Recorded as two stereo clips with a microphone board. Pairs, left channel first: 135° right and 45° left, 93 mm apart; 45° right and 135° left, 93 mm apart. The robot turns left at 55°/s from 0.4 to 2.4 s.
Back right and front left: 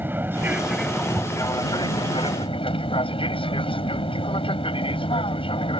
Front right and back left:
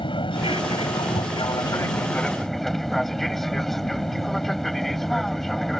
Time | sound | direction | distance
0.0 | an aircraft | 25° right | ?